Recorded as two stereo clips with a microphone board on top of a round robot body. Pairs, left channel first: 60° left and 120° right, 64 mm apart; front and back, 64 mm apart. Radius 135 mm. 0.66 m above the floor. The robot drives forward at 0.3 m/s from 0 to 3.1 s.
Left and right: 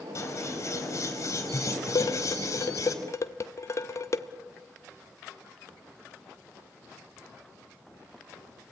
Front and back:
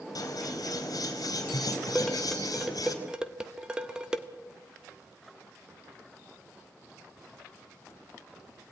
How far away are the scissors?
About 4.5 m.